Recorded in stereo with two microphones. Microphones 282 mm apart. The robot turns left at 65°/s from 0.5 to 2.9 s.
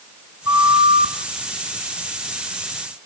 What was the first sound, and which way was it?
A flute, 80° left.